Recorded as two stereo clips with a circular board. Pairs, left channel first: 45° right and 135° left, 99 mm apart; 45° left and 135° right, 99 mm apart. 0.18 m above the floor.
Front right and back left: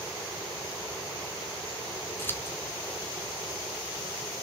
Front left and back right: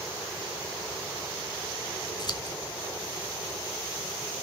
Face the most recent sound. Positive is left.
turn(degrees=15)